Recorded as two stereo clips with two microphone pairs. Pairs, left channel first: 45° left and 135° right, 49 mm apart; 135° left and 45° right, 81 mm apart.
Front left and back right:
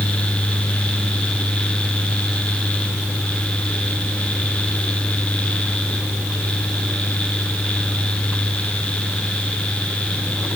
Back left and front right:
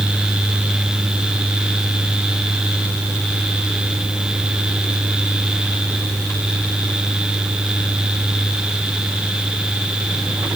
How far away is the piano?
I don't hear a piano.